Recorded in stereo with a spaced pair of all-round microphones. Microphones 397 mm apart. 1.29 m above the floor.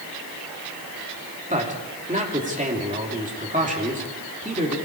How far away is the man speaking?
About 3 m.